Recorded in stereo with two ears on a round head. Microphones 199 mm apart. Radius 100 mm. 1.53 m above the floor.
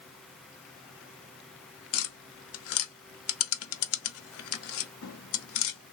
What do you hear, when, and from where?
1.9 s tapping: 70° left (ahead or behind), 0.6 m